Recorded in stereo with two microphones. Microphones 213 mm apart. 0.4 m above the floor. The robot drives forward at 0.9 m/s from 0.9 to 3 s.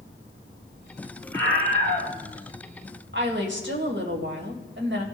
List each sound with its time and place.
1.3 s a scream: 70° right (ahead or behind), 5 m; by 2.1 s 65° right (ahead or behind), 5 m
3.1 s a woman speaking: 55° right (ahead or behind), 2 m